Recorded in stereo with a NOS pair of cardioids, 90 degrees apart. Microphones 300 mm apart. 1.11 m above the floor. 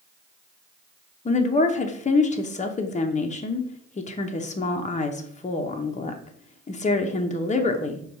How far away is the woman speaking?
About 0.7 m.